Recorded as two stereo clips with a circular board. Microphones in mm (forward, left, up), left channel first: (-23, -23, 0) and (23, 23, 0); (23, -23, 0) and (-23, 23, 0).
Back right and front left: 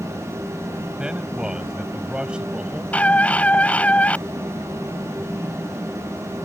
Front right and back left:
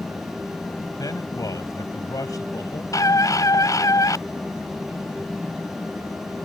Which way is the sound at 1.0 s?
30° right.